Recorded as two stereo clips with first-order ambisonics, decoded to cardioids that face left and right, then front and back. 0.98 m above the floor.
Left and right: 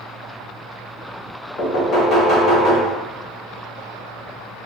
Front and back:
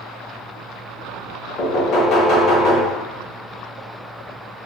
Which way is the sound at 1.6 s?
35° left.